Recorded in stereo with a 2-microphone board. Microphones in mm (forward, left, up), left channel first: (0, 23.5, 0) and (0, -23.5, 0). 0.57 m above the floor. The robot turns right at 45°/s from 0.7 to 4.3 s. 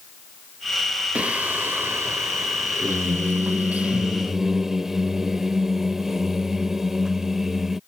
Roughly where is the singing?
Behind right.